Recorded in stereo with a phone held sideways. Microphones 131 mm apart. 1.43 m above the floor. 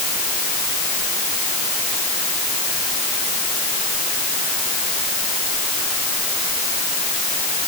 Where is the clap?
No clap in this recording.